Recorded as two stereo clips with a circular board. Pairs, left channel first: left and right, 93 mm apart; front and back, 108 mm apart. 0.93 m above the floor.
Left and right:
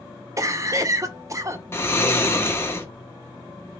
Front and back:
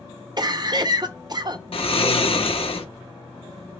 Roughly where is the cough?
Behind right.